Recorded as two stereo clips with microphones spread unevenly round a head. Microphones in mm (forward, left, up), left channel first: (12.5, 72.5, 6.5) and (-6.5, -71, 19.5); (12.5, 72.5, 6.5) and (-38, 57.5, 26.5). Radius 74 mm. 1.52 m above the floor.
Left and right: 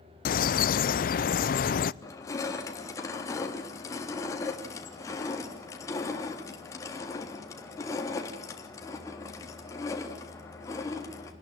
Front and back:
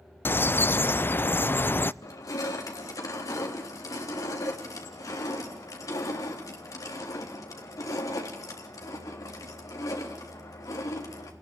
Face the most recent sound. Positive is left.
turn(degrees=15)